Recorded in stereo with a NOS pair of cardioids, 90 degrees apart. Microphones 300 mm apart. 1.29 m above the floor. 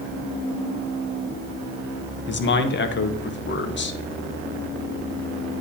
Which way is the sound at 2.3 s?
40° left.